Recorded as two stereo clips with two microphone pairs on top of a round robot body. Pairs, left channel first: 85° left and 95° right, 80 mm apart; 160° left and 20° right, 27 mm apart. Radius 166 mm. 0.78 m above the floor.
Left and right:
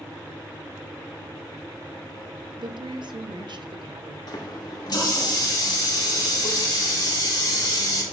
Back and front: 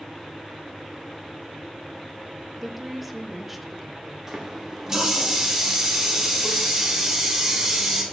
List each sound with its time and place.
2.6 s a woman speaking: 100° right, 1.0 m
4.3 s a running tap: 50° left, 1.9 m